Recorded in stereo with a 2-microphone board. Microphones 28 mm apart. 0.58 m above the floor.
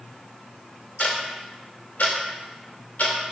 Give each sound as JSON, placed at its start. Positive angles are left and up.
{"t": 1.0, "sound": "ticking", "side_deg": 75, "distance_m": 0.7}